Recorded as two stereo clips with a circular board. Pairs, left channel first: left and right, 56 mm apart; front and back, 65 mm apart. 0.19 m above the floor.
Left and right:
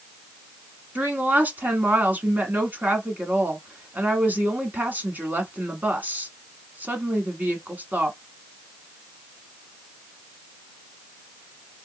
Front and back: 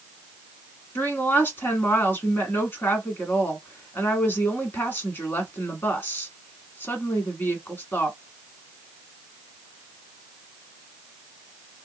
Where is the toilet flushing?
I don't hear a toilet flushing.